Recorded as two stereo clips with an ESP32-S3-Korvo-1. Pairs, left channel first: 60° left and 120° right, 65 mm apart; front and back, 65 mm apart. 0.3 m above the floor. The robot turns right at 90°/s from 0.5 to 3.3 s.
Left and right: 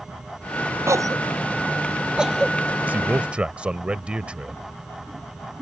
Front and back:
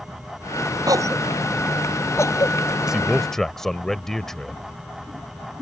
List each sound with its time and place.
0.9 s a cough: 165° right; by 2.6 s 10° right
2.9 s a man speaking: 115° right; by 4.6 s 75° right